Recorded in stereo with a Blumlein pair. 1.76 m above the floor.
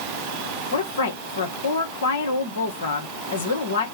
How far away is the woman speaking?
About 1.6 m.